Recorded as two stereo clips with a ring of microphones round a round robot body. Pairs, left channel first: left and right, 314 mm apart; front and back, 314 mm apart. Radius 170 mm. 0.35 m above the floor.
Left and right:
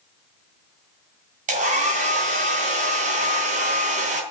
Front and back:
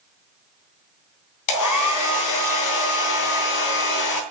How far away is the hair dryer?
About 2.5 m.